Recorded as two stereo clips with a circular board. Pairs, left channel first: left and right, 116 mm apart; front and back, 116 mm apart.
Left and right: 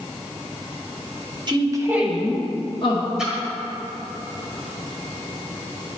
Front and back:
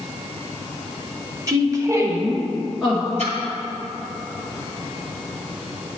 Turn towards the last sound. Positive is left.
turn(degrees=-175)